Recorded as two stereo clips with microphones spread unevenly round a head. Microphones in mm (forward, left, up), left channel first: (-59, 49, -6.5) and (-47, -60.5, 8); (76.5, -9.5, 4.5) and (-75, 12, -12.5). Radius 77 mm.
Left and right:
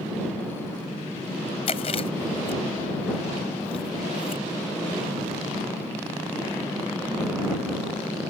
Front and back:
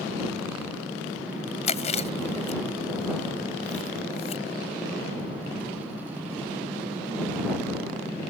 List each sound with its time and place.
1.7 s chewing: 40° left